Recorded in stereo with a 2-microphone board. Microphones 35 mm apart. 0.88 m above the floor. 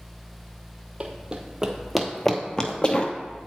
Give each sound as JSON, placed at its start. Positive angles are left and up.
{"t": 1.0, "sound": "running footsteps", "side_deg": -35, "distance_m": 1.1}